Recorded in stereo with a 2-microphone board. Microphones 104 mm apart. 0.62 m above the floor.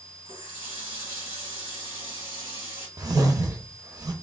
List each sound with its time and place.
0.2 s a running tap: 75° right (ahead or behind), 2.5 m
3.0 s a whoosh: 40° right (ahead or behind), 0.6 m